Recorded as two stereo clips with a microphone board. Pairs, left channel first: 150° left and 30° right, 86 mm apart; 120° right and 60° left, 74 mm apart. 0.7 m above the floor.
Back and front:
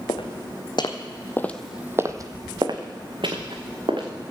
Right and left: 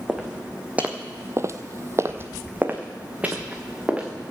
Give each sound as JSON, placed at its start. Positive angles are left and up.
{"t": 0.1, "sound": "footsteps", "azimuth_deg": 140, "distance_m": 2.5}